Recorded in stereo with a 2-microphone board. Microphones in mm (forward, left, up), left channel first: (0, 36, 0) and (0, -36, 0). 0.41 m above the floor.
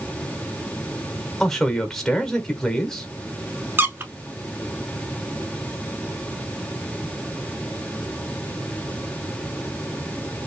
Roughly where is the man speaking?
Centre.